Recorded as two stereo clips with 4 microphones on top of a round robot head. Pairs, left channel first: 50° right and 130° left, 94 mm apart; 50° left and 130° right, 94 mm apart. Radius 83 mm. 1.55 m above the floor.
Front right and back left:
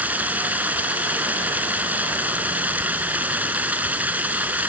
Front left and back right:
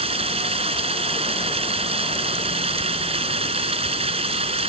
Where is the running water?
155° right.